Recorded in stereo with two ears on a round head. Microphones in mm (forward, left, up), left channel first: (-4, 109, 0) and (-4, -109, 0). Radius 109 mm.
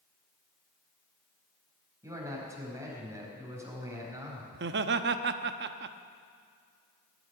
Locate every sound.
2.0 s a man speaking: 10° right (ahead or behind), 4.5 m
4.5 s laughter: 45° right (ahead or behind), 0.8 m